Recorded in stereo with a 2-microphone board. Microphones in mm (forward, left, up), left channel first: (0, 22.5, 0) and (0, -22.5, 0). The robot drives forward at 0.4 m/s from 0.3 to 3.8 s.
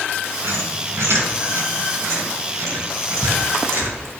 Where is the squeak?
80° right, 5.5 m; by 4.0 s 65° right (ahead or behind), 6 m.